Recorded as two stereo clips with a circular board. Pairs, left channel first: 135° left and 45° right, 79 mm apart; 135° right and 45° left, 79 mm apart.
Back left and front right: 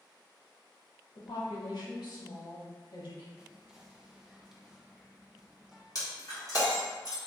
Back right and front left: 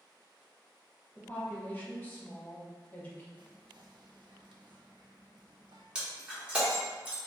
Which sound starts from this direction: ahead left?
Whispering, at 3.4 s.